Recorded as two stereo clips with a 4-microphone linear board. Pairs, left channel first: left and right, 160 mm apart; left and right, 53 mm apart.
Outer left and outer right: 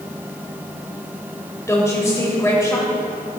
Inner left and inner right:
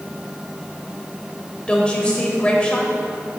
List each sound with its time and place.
1.7 s a woman speaking: 20° left (ahead or behind), 1.1 m